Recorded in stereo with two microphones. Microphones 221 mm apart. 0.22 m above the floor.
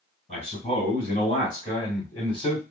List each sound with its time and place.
0.3 s a man speaking: 25° left (ahead or behind), 1.6 m; by 2.6 s 5° left (ahead or behind), 1.8 m